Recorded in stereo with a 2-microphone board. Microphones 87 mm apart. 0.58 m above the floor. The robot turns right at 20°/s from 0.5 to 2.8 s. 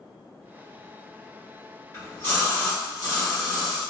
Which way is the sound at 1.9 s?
40° left (ahead or behind).